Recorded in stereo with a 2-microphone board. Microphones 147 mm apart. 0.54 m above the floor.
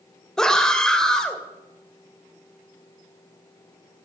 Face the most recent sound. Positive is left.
turn(degrees=5)  # may be behind; listen again after turning